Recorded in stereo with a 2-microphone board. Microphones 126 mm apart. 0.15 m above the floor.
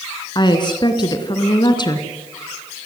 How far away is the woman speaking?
About 2 m.